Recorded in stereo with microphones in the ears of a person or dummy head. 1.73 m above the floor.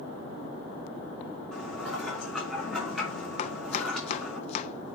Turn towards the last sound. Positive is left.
turn(degrees=40)  # may be behind; listen again after turning